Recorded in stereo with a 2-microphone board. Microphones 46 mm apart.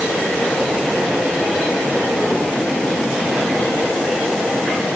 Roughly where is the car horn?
No car horn in this recording.